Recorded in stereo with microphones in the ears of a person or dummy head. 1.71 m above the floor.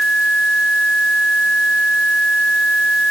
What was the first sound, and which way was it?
Only background noise.